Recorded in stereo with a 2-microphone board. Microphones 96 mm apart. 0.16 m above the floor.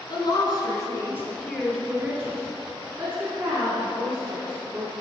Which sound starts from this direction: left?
A woman speaking, at 0.1 s.